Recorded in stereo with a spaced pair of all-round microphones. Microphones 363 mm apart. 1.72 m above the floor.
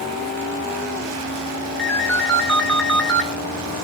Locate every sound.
1.8 s a ringtone: 5° left (ahead or behind), 1.4 m